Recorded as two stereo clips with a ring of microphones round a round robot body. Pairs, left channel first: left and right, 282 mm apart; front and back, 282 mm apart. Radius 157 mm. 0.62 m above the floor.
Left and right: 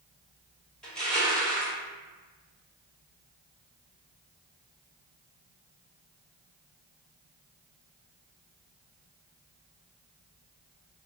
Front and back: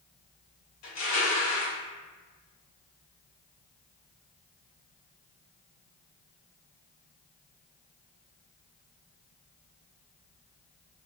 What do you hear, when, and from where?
0.8 s crushing: 5° left, 1.2 m